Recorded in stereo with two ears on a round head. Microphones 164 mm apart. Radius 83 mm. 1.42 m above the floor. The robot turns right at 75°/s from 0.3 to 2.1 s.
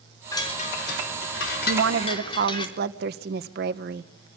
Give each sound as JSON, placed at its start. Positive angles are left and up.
{"t": 0.3, "sound": "a chime", "azimuth_deg": 15, "distance_m": 4.0}
{"t": 1.7, "sound": "a woman speaking", "azimuth_deg": -90, "distance_m": 1.1}